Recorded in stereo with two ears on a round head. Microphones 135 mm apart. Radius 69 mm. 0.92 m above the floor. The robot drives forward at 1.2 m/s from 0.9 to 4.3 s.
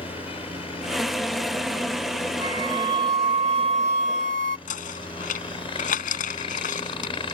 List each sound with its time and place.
0.0 s a helicopter: 40° left (ahead or behind); by 7.3 s 35° left (ahead or behind)
2.4 s a flute: 25° right (ahead or behind); by 4.6 s 55° right (ahead or behind)
4.7 s knocking: 60° left (ahead or behind)